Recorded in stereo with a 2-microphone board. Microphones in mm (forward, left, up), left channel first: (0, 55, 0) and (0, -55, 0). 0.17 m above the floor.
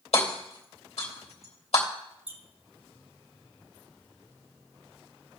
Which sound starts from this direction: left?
Hammering, at 0.1 s.